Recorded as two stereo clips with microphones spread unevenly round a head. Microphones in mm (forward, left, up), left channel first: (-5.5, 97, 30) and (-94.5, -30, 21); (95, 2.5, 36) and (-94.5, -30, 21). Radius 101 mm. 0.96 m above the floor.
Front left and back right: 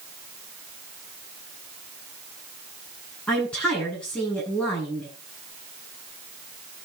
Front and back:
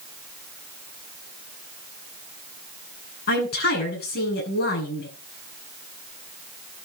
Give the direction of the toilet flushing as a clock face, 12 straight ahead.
No toilet flushing in this recording.